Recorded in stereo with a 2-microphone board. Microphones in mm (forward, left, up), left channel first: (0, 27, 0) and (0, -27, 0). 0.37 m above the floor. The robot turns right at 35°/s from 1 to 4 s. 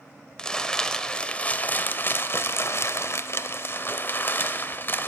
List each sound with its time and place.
0.4 s crumpling: 20° left, 0.8 m; by 5.1 s 125° left, 0.8 m